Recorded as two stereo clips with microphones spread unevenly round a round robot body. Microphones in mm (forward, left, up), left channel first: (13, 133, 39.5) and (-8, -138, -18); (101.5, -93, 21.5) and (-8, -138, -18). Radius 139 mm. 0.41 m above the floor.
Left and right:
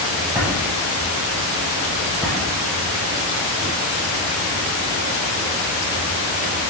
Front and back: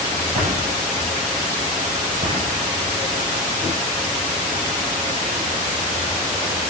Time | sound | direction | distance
0.3 | a drawer | straight behind | 8 m